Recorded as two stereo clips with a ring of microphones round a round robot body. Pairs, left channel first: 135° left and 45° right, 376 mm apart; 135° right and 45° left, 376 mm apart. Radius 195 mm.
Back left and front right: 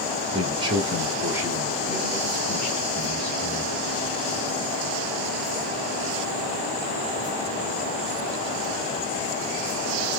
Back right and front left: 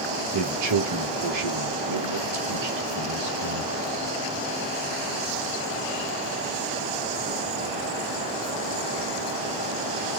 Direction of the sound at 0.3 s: 30° left.